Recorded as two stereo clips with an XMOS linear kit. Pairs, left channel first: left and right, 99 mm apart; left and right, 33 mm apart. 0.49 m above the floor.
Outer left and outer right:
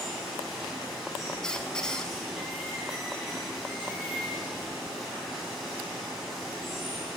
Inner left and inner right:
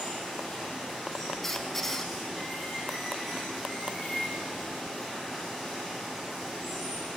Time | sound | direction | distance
0.0 | running water | centre (ahead or behind) | 3 m
1.4 | a squeak | 10° left (ahead or behind) | 0.7 m